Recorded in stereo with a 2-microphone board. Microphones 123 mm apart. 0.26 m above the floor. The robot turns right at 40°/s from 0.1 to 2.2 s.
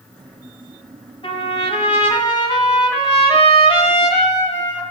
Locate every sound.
1.2 s a trumpet: 80° left, 1.9 m; by 4.8 s 115° left, 1.9 m